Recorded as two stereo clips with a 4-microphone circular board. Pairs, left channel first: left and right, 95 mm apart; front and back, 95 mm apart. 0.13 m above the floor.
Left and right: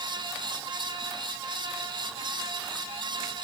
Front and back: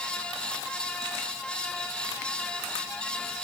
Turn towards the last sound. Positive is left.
No sound to turn to.